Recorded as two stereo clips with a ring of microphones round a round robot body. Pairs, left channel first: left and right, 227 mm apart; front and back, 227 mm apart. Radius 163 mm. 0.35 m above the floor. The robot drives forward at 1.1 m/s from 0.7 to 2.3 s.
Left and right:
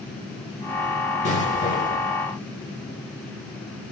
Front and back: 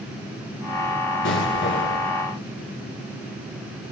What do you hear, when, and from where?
1.2 s an explosion: 30° left, 6.5 m; by 2.1 s 40° left, 5.5 m